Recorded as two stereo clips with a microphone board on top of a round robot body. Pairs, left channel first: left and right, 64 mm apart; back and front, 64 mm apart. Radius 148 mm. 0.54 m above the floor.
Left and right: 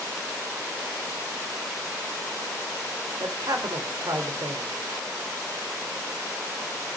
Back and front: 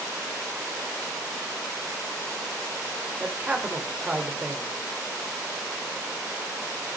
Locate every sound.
3.2 s a man speaking: 65° right, 3 m